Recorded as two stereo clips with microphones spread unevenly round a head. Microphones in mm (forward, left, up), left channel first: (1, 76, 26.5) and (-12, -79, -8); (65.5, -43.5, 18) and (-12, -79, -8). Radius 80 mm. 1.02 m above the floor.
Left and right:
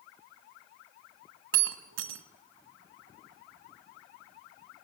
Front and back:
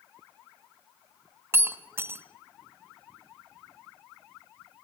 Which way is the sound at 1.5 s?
85° right.